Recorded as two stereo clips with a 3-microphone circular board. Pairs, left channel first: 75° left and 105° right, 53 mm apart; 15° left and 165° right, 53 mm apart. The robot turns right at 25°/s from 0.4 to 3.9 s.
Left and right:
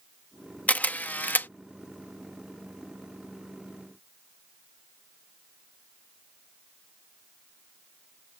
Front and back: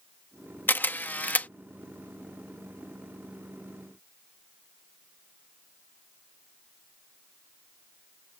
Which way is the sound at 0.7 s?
35° left.